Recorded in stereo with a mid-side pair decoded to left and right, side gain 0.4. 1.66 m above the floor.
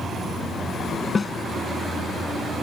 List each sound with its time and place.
1.1 s a snare drum: 35° left